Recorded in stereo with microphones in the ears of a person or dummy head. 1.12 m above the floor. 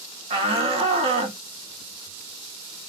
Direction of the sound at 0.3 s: 25° right (ahead or behind).